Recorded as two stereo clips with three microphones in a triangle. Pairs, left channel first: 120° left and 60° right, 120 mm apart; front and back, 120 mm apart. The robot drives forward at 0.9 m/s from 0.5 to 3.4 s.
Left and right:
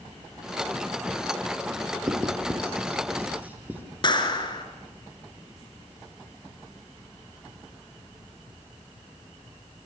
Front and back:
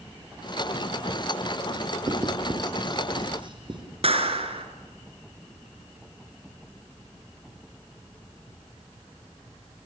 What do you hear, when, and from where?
2.1 s writing: 120° right, 4 m; by 3.8 s 135° right, 4.5 m
4.0 s a clap: 160° left, 2.5 m